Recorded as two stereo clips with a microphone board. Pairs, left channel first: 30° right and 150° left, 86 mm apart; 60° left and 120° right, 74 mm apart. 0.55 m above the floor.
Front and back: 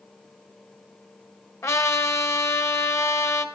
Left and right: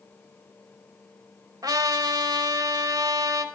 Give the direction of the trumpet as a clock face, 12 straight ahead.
3 o'clock.